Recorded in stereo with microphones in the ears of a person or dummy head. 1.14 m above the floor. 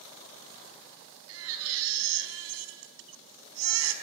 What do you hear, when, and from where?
1.3 s a baby crying: 80° right, 4 m